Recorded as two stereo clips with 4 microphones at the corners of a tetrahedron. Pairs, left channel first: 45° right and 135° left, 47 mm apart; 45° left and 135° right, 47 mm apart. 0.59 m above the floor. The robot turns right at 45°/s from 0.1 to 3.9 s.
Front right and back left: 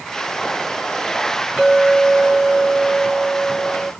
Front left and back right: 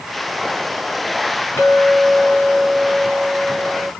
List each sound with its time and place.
1.6 s a clink: 55° left, 4 m; by 3.9 s 160° left, 4 m